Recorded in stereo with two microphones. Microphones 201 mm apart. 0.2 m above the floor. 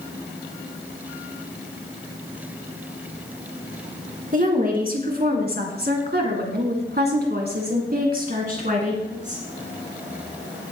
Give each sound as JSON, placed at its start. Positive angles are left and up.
{"t": 4.3, "sound": "a woman speaking", "side_deg": -45, "distance_m": 2.5}